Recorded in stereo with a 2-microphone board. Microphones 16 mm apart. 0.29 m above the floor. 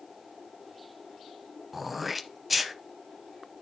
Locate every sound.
1.7 s throat clearing: 10° right (ahead or behind), 0.7 m